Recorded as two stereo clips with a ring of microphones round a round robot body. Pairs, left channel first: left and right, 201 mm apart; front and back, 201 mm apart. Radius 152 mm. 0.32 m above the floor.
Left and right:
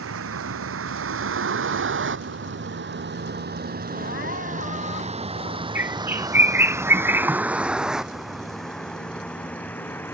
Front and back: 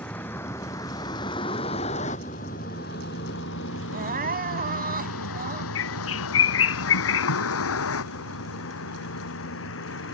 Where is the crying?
140° left.